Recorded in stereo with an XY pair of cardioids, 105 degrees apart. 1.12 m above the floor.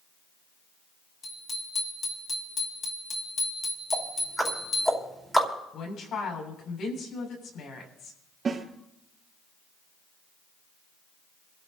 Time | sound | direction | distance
1.2 | a bicycle bell | 50° left | 6.5 m
3.9 | ticking | straight ahead | 4.5 m
5.7 | a woman speaking | 65° left | 7.5 m
8.4 | a snare drum | 40° right | 5 m